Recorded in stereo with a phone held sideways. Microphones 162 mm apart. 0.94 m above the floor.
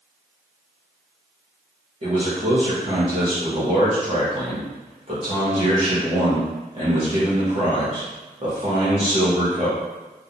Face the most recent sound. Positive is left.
turn(degrees=-35)  # may be behind; listen again after turning